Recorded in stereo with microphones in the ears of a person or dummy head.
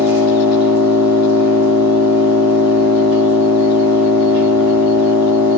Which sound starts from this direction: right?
An engine running, at 0.0 s.